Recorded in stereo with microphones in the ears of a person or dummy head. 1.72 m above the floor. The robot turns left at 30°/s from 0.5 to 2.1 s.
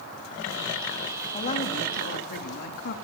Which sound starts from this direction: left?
A woman speaking, at 1.3 s.